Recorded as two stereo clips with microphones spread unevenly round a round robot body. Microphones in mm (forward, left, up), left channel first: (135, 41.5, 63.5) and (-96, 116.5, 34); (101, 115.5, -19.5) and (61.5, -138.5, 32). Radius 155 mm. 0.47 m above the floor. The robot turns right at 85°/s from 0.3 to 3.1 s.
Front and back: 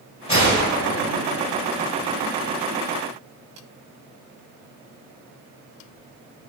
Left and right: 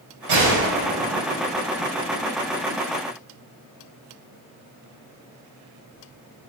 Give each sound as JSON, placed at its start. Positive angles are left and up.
{"t": 0.3, "sound": "a gunshot", "azimuth_deg": -90, "distance_m": 1.9}